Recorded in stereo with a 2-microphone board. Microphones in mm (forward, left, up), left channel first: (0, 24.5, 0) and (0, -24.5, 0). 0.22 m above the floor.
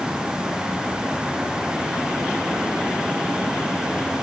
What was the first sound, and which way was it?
Only background noise.